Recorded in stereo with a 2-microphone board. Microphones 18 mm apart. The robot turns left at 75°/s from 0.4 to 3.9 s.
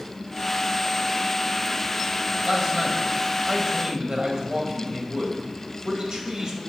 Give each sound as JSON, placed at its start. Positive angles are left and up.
{"t": 2.4, "sound": "a man speaking", "azimuth_deg": -15, "distance_m": 1.7}